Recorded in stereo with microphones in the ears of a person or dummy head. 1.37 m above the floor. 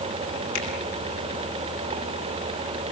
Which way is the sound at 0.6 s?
85° left.